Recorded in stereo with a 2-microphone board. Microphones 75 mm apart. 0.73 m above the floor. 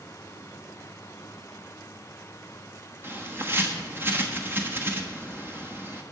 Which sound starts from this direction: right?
A bird, at 3.0 s.